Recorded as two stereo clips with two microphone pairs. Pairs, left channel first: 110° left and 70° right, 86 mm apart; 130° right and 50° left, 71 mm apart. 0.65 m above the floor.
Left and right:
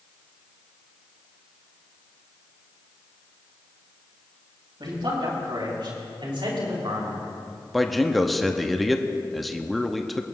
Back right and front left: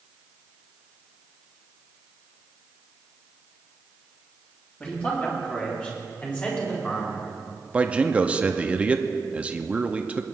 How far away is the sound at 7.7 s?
About 0.6 m.